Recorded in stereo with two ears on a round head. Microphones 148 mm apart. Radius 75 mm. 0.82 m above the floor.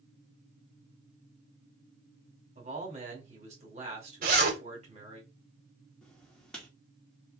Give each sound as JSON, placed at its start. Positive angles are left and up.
{"t": 2.5, "sound": "a man speaking", "side_deg": -40, "distance_m": 2.5}
{"t": 4.2, "sound": "a zipper", "side_deg": -65, "distance_m": 2.5}
{"t": 6.0, "sound": "writing", "side_deg": 5, "distance_m": 1.8}